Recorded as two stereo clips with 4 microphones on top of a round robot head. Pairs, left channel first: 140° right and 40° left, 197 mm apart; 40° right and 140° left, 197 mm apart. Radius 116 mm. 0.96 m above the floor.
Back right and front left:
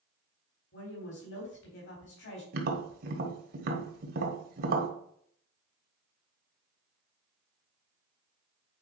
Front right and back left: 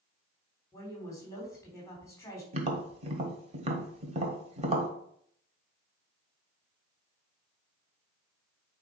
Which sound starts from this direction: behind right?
A woman speaking, at 0.7 s.